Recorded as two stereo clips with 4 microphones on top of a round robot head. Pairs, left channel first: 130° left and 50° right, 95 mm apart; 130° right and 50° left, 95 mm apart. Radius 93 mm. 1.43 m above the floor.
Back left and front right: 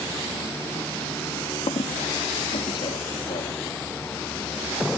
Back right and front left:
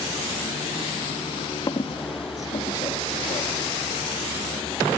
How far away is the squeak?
About 2 m.